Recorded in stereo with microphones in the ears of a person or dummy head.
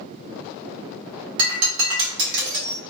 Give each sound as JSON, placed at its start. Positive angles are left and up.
{"t": 1.4, "sound": "breaking glass", "side_deg": -60, "distance_m": 1.5}